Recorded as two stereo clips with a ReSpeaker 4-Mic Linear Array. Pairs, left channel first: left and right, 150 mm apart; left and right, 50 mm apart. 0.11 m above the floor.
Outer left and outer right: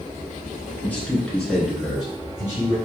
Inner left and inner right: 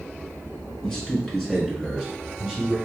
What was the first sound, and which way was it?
A man speaking, 10° left (ahead or behind).